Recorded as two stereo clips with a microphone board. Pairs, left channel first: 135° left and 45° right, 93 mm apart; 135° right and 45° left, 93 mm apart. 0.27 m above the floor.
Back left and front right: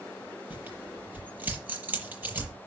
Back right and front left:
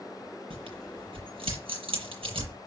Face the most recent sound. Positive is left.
turn(degrees=25)